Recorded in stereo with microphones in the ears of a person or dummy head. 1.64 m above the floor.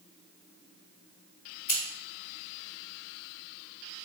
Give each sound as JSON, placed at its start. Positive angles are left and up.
{"t": 1.7, "sound": "scissors", "side_deg": 55, "distance_m": 3.0}